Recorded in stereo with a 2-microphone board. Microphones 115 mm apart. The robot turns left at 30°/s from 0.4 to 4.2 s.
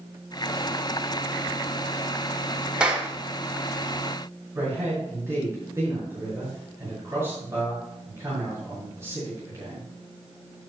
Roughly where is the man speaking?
Right.